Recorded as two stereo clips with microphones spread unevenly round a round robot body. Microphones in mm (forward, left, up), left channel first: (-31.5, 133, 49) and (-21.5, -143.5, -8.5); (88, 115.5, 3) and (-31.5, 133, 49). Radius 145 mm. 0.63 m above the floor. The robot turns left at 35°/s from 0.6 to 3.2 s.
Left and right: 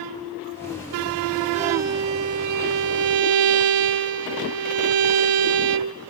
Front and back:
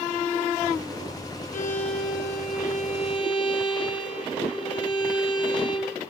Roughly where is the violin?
Ahead.